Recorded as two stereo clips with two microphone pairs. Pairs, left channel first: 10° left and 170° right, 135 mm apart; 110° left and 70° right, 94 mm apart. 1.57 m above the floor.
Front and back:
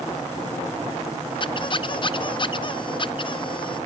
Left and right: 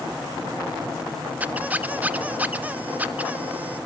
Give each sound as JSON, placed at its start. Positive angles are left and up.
{"t": 1.4, "sound": "a squeak", "azimuth_deg": -10, "distance_m": 0.5}